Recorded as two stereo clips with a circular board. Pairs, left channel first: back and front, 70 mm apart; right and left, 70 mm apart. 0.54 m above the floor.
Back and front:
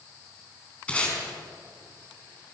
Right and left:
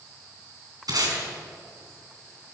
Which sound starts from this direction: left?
Tape being pulled, at 0.9 s.